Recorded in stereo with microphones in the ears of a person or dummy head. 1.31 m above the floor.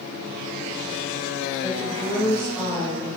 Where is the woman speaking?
20° left (ahead or behind), 2.5 m.